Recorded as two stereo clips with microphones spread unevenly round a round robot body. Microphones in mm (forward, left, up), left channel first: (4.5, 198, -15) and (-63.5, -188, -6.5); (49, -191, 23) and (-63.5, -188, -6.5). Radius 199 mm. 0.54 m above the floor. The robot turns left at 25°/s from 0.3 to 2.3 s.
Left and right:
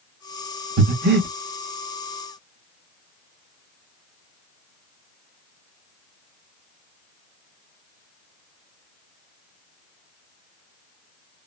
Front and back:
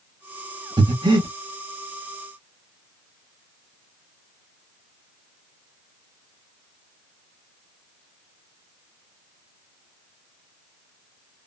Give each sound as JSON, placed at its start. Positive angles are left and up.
{"t": 0.8, "sound": "breathing", "azimuth_deg": -150, "distance_m": 1.2}